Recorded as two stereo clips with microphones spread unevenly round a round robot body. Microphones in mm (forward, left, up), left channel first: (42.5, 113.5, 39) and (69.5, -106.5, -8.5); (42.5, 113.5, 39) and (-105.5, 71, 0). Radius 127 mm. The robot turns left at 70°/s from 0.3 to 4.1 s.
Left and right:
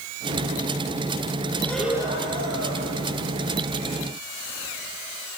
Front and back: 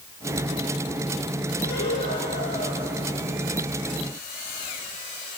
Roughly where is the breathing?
Ahead left.